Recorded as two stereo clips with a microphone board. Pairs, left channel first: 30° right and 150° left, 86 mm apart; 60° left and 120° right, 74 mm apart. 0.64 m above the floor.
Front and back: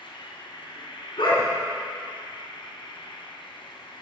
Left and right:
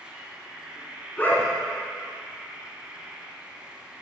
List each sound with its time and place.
0.0 s an insect: 45° right, 2.5 m
1.2 s a dog barking: 10° right, 3.5 m